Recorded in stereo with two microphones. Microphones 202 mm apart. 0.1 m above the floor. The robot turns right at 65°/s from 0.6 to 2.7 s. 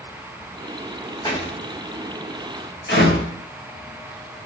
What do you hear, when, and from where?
1.2 s a door slam: 20° left (ahead or behind), 4 m; by 3.3 s 65° left (ahead or behind), 4 m